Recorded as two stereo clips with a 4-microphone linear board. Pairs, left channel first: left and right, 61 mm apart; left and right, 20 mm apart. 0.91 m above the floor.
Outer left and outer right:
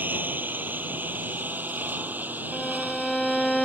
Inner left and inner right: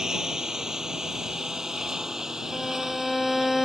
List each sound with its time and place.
0.0 s a lawn mower: 30° right (ahead or behind); by 3.6 s 25° right (ahead or behind)
2.5 s a violin: 5° left (ahead or behind)